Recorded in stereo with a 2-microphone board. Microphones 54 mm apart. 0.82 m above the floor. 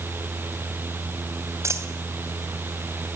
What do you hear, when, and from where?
1.6 s a dropped coin: 60° right (ahead or behind), 2.5 m